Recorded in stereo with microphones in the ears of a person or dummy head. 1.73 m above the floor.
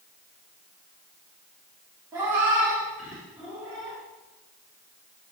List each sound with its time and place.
2.1 s a cat meowing: 15° right (ahead or behind), 1.3 m; by 4.0 s centre (ahead or behind), 2.5 m